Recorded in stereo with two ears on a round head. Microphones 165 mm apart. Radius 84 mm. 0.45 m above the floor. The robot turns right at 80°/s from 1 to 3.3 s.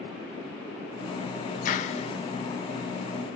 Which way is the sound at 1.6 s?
100° left.